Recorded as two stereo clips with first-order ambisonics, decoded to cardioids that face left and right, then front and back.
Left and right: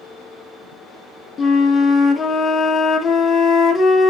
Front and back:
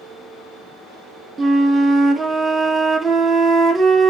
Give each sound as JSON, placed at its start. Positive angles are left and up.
{"t": 1.4, "sound": "a flute", "azimuth_deg": 130, "distance_m": 0.6}